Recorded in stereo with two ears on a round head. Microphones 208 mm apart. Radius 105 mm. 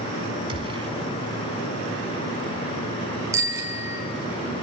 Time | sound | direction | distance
0.5 | a gunshot | 25° right (ahead or behind) | 1.2 m
3.3 | a bicycle bell | 15° right (ahead or behind) | 3.5 m